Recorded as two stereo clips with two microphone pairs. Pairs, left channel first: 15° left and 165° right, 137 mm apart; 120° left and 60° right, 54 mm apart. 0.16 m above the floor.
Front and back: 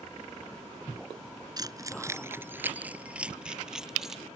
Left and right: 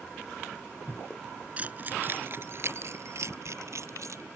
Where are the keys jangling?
115° right; by 4.2 s 80° right.